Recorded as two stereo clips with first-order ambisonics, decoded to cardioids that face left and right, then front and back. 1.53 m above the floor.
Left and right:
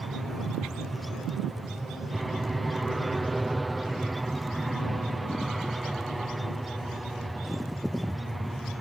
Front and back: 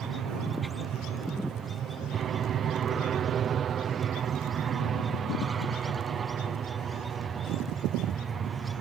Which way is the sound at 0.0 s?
165° right.